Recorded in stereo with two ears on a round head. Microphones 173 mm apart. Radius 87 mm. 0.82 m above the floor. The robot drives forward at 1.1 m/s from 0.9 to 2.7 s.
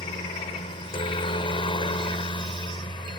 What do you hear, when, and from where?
0.0 s a helicopter: 25° left (ahead or behind)